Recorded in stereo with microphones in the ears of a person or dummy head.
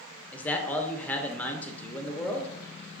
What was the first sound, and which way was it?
A man speaking, 10° left (ahead or behind).